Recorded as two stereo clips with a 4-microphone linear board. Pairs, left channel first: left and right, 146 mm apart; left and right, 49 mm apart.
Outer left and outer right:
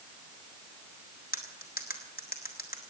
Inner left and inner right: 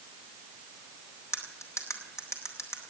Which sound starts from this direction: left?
Cutlery clinking, at 1.3 s.